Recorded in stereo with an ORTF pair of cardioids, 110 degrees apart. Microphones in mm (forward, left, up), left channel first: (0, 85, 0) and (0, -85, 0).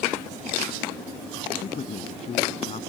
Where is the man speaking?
40° left.